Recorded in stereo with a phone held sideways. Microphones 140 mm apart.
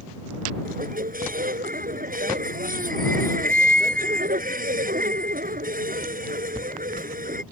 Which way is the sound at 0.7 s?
85° right.